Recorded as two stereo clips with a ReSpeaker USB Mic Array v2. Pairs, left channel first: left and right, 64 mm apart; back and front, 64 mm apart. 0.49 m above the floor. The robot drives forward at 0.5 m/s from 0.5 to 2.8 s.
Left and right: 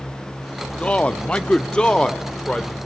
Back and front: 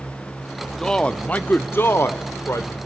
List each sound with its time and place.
0.8 s a man speaking: 115° left, 0.8 m; by 2.9 s 165° left, 1.4 m